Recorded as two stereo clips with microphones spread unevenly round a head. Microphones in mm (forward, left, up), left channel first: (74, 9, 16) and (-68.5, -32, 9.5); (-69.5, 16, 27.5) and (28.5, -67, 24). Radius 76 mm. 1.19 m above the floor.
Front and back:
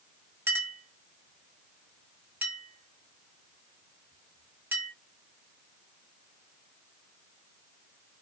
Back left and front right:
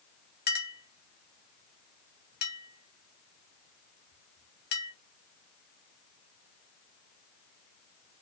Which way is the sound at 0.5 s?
120° left.